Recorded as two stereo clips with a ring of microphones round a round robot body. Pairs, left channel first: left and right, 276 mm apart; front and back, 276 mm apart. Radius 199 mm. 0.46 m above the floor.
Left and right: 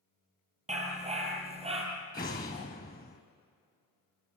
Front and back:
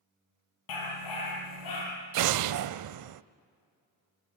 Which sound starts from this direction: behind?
An explosion, at 2.1 s.